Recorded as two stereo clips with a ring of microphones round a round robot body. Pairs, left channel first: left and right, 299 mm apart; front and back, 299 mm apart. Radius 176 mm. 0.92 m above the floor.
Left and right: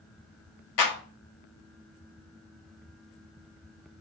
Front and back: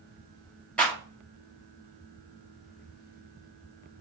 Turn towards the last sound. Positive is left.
turn(degrees=85)